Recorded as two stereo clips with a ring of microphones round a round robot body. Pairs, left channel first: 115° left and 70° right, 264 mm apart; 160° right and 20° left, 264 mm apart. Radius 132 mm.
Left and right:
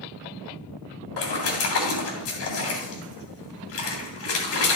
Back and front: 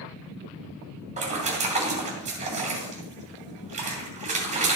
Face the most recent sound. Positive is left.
turn(degrees=85)